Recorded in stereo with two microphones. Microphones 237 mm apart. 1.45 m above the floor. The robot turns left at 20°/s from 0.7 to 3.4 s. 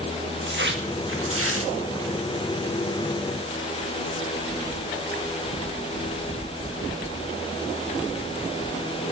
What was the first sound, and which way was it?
Tearing paper, 50° right (ahead or behind).